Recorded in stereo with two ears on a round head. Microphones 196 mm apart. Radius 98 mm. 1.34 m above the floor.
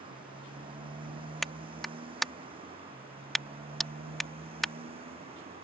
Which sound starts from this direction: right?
A motorcycle, at 0.0 s.